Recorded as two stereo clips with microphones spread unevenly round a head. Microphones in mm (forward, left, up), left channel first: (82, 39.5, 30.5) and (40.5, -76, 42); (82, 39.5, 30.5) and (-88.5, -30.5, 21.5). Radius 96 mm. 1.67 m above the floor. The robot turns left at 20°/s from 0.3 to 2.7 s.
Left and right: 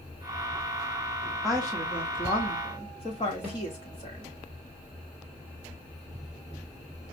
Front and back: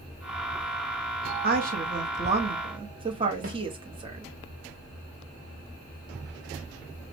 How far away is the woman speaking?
About 0.8 m.